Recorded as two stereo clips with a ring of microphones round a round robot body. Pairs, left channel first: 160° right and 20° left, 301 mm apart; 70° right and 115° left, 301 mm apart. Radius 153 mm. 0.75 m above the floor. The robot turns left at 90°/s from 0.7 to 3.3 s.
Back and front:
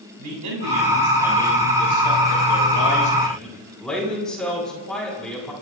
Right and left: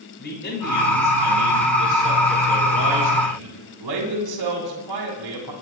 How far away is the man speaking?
About 8 m.